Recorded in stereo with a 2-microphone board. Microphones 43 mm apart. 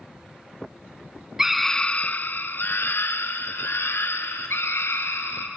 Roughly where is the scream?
Centre.